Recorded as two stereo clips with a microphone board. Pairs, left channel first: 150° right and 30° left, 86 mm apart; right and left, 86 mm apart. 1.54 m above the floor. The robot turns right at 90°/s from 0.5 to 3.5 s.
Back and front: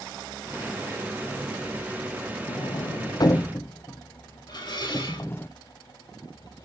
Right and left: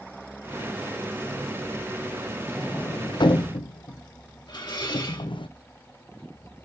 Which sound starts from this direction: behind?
A sliding door, at 2.5 s.